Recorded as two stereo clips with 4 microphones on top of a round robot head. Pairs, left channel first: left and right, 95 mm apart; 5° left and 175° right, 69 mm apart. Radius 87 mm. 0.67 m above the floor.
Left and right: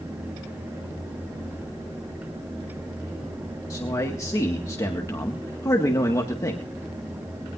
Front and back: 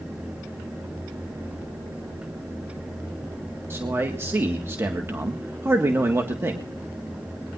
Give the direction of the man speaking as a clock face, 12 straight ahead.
7 o'clock.